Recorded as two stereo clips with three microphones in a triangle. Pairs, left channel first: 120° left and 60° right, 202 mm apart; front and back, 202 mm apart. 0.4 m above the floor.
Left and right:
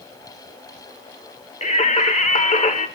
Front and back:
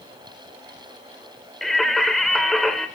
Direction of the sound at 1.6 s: 90° left.